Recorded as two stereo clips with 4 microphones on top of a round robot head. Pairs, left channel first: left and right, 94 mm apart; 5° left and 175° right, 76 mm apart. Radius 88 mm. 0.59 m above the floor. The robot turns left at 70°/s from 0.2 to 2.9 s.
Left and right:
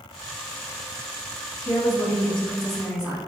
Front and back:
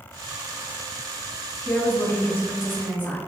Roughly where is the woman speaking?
Left.